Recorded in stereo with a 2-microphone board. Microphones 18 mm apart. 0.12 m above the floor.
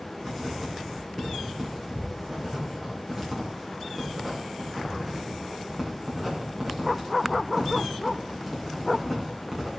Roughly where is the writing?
Centre.